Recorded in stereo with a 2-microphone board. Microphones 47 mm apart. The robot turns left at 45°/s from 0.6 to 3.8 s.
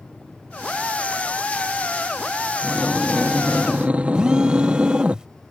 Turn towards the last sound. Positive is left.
turn(degrees=-15)  # may be behind; listen again after turning